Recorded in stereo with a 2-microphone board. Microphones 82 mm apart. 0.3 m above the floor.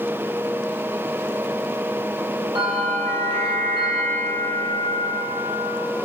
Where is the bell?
80° right, 3.5 m.